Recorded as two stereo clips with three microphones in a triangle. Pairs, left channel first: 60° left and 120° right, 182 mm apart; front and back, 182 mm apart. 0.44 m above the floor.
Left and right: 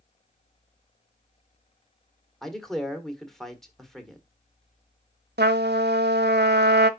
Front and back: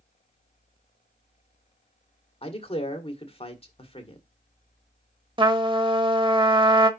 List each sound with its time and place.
2.4 s a man speaking: 25° right, 1.7 m
5.4 s a trumpet: 120° right, 0.8 m